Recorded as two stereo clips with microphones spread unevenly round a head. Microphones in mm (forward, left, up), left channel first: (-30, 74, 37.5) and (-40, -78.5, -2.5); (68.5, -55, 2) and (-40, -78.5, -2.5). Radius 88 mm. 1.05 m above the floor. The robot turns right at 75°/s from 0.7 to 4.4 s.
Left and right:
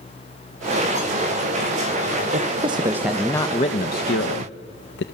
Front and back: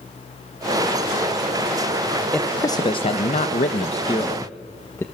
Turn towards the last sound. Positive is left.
turn(degrees=85)